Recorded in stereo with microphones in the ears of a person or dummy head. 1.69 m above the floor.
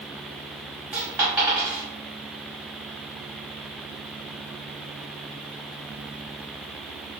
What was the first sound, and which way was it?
A dropped coin, 15° right (ahead or behind).